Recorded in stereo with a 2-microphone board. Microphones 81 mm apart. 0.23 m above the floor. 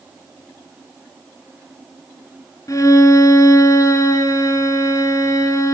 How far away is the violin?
About 2.0 m.